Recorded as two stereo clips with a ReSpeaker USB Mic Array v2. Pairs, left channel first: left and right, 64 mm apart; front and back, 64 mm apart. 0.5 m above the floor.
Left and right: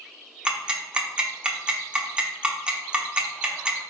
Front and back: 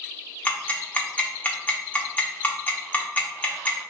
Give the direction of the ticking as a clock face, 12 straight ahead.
1 o'clock.